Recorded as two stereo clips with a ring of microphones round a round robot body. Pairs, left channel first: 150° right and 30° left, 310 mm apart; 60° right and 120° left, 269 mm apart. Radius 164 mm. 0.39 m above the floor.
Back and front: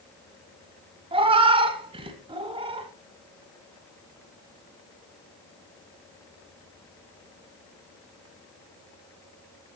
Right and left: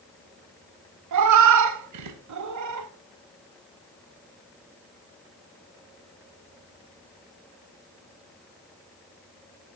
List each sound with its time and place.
1.1 s a cat meowing: 105° left, 1.1 m